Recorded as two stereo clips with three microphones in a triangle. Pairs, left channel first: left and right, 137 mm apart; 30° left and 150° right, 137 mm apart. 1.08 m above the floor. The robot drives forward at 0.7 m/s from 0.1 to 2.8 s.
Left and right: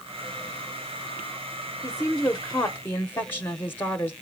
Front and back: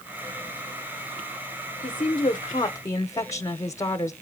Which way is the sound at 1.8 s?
10° left.